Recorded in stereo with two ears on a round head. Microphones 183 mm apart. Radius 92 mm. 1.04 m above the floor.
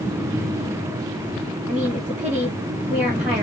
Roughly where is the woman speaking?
Centre.